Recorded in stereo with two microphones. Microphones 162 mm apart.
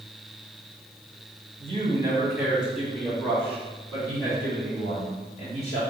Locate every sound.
1.6 s a man speaking: 35° right (ahead or behind), 1.8 m; by 5.8 s 40° left (ahead or behind), 4.5 m